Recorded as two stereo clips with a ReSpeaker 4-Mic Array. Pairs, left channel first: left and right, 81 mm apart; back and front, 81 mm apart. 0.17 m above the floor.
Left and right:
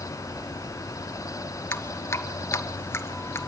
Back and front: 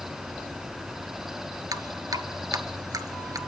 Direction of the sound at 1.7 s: 35° left.